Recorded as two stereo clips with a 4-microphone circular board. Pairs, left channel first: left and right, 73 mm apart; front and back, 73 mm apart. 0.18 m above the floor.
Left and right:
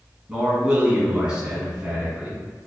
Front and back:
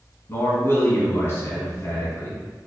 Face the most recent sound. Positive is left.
turn(degrees=-25)